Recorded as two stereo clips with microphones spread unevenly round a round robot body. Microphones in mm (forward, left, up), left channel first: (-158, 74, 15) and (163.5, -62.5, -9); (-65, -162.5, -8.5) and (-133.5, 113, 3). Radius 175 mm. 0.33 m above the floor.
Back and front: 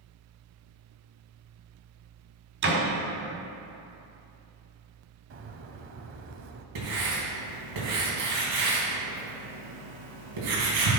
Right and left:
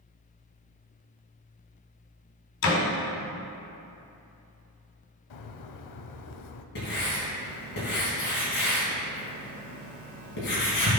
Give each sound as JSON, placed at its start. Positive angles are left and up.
{"t": 2.6, "sound": "a door slam", "azimuth_deg": -75, "distance_m": 2.0}
{"t": 5.3, "sound": "a bird", "azimuth_deg": -80, "distance_m": 0.7}
{"t": 6.8, "sound": "writing", "azimuth_deg": -20, "distance_m": 3.5}